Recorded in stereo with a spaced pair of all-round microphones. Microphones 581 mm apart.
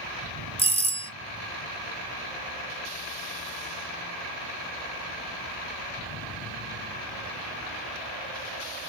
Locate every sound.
0.6 s a doorbell: 10° left (ahead or behind), 0.6 m